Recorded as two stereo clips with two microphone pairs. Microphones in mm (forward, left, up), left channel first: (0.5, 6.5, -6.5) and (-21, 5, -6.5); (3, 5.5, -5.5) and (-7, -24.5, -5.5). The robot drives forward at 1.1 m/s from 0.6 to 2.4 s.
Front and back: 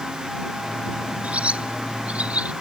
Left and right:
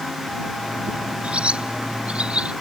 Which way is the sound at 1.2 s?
160° right.